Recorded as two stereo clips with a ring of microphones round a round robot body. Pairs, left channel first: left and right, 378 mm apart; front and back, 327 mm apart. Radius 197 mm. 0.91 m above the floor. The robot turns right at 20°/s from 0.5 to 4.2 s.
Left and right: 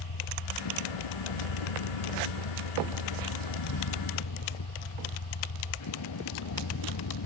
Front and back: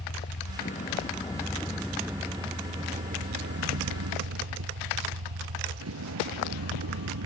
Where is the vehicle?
65° left; by 7.3 s 135° left.